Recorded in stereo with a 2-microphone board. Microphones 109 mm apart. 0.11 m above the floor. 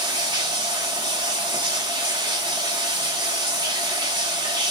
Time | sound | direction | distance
0.0 | running water | 40° right (ahead or behind) | 1.1 m